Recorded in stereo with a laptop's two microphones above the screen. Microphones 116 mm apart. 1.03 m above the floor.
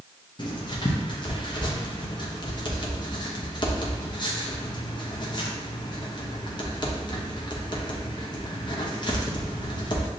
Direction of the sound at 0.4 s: 40° left (ahead or behind).